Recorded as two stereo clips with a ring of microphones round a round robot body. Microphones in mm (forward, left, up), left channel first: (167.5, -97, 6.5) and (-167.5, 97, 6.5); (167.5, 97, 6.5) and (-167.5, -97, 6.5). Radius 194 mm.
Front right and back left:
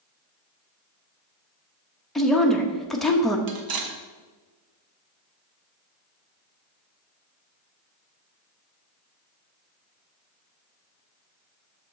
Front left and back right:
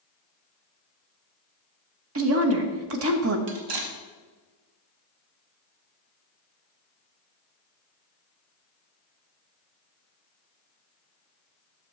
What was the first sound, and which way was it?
A woman speaking, 120° right.